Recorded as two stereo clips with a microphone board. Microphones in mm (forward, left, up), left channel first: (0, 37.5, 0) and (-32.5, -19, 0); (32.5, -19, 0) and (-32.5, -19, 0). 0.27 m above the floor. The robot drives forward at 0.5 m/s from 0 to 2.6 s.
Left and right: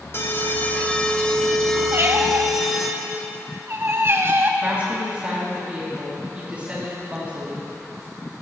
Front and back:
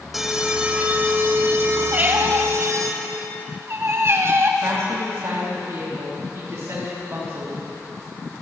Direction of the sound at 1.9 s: 130° right.